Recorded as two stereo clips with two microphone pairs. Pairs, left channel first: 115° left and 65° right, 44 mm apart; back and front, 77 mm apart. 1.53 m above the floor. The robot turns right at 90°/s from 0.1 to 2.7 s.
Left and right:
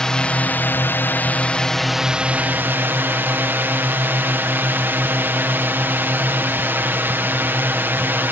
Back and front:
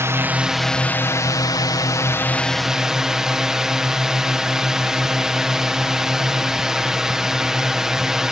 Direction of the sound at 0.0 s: 45° left.